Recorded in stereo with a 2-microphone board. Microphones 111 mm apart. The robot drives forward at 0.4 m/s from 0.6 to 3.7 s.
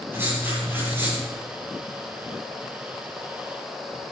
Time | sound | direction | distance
0.1 | writing | 20° right (ahead or behind) | 8 m